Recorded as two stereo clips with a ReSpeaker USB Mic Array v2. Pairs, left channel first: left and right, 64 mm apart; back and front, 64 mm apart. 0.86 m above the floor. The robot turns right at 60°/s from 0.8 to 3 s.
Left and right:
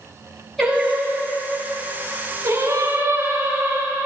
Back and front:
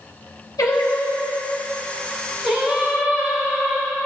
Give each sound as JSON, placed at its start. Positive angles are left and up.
{"t": 0.6, "sound": "singing", "azimuth_deg": 180, "distance_m": 6.0}